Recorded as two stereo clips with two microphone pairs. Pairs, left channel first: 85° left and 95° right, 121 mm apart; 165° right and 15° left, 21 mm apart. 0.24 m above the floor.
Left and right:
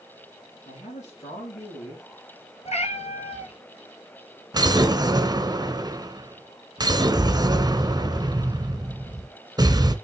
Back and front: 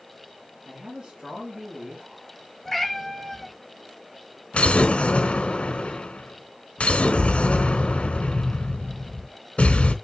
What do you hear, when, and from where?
0.7 s a man speaking: 60° left, 5 m
2.6 s a cat meowing: 110° left, 1.2 m
4.5 s an explosion: 155° right, 0.8 m